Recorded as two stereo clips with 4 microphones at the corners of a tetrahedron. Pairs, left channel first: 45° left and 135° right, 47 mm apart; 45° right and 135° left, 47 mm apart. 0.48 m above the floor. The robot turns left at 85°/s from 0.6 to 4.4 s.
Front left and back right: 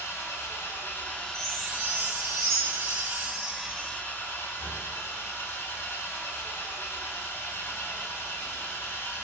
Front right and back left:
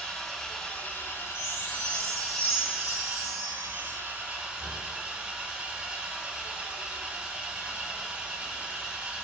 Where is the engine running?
35° left, 0.8 m; by 9.2 s 75° left, 0.8 m.